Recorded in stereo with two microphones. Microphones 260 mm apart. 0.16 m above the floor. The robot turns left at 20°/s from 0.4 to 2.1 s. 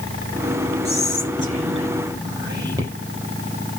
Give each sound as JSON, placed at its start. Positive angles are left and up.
{"t": 0.8, "sound": "whispering", "side_deg": -40, "distance_m": 5.0}